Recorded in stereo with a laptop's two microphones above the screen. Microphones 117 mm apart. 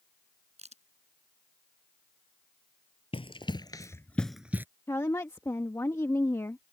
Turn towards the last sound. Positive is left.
turn(degrees=25)  # may be behind; listen again after turning